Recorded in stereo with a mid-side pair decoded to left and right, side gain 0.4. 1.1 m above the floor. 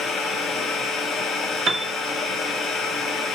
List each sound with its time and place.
0.0 s a machine running: 70° left, 0.8 m
1.7 s a piano: 50° right, 0.6 m